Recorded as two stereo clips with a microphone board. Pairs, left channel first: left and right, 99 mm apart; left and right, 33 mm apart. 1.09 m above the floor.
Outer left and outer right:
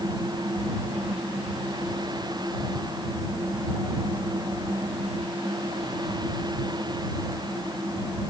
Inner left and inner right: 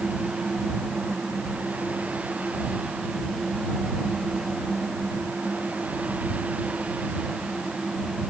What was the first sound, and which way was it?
Only background noise.